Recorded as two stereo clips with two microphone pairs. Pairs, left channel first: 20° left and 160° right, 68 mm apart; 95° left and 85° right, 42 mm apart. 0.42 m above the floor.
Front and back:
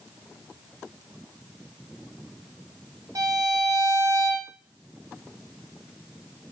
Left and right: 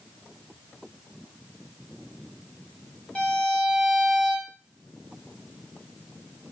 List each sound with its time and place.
3.1 s a violin: 170° left, 0.8 m